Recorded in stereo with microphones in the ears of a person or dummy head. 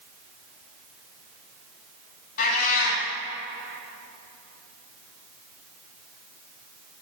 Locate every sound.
2.4 s a cat meowing: 50° left (ahead or behind), 2.5 m